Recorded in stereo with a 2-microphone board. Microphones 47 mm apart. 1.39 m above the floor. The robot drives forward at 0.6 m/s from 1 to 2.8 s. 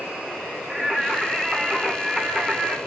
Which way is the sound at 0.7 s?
15° right (ahead or behind).